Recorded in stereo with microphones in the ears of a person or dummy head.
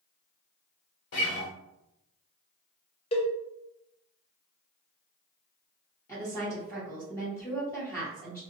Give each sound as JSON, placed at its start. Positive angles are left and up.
{"t": 1.1, "sound": "a guitar", "side_deg": 50, "distance_m": 1.2}
{"t": 3.1, "sound": "a cowbell", "side_deg": 35, "distance_m": 0.5}
{"t": 6.1, "sound": "a woman speaking", "side_deg": 10, "distance_m": 1.5}